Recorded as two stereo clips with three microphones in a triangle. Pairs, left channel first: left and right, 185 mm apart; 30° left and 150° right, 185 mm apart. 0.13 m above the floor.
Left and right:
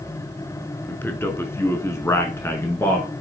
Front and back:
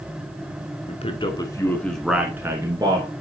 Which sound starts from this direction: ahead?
A man speaking, at 0.9 s.